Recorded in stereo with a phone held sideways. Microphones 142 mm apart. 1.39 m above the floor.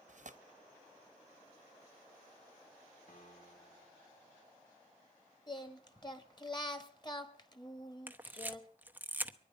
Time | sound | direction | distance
0.1 | tearing paper | 60° right (ahead or behind) | 0.9 m
3.1 | a piano | 75° left (ahead or behind) | 2.0 m
5.5 | singing | 30° left (ahead or behind) | 1.3 m
8.1 | a camera shutter | 15° right (ahead or behind) | 0.9 m